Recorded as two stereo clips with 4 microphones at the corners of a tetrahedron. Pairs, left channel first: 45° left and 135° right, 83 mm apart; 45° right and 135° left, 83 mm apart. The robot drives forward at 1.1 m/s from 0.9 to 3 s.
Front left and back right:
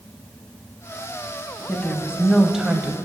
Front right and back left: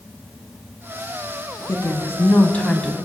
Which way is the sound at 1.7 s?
20° right.